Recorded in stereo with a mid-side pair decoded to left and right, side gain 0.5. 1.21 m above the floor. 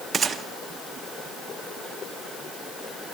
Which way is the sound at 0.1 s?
35° right.